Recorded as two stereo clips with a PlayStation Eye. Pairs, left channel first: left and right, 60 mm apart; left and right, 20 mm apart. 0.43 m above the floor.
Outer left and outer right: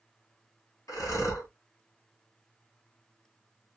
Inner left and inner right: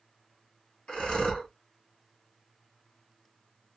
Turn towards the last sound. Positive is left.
turn(degrees=75)  # may be behind; listen again after turning